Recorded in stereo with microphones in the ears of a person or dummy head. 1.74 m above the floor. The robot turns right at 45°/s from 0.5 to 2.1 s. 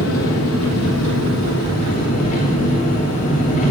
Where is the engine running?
70° left, 3 m; by 3.7 s 145° left, 3 m.